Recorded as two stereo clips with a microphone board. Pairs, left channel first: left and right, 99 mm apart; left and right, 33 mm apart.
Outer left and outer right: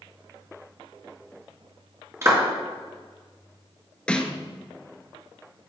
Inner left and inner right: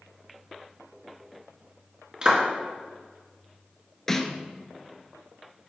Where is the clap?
30° right (ahead or behind), 1.9 m.